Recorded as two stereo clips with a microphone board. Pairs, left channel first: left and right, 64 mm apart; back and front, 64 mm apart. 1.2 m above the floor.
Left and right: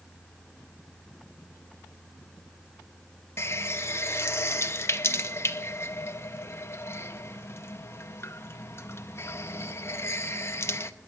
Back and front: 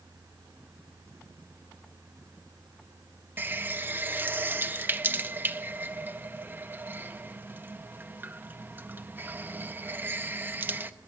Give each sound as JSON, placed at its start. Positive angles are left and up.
{"t": 3.4, "sound": "a running tap", "azimuth_deg": 55, "distance_m": 0.6}